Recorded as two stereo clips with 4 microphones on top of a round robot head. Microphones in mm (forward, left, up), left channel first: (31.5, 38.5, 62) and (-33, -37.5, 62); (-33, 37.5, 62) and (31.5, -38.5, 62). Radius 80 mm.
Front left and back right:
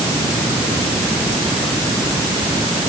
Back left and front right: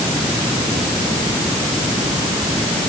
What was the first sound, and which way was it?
Only background noise.